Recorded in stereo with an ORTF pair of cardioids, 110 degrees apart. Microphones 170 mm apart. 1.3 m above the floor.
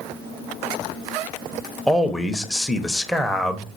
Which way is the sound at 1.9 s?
Straight ahead.